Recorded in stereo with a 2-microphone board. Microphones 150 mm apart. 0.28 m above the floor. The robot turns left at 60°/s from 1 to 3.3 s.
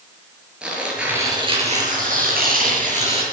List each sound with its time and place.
0.6 s tearing paper: 5° right, 5.5 m; by 3.2 s 140° right, 5.5 m